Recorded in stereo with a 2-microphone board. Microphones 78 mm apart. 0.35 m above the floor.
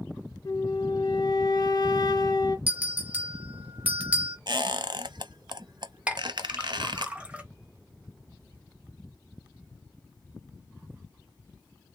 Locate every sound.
0.5 s a flute: 55° left (ahead or behind), 0.7 m
2.7 s a bell: 15° right (ahead or behind), 1.1 m
4.5 s a squeak: 60° right (ahead or behind), 0.5 m
6.1 s a clink: 15° right (ahead or behind), 1.1 m